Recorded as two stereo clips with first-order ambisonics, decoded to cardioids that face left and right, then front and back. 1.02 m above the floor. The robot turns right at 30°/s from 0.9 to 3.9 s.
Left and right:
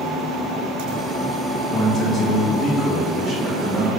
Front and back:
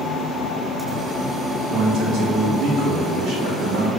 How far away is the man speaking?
About 1.2 m.